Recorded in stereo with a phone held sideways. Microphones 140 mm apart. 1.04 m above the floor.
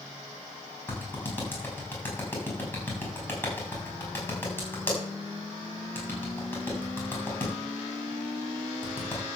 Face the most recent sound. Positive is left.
turn(degrees=15)  # may be behind; listen again after turning